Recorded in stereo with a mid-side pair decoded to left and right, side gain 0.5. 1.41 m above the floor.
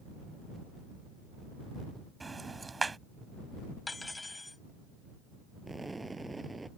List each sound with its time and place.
2.2 s ticking: 20° right
3.9 s cutlery clinking: 15° left
5.7 s an explosion: 15° right